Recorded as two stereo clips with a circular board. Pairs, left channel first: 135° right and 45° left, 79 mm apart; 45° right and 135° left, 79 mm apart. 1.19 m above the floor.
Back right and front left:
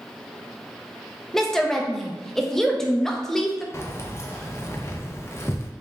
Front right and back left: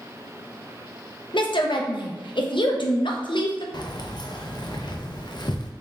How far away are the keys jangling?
About 0.5 m.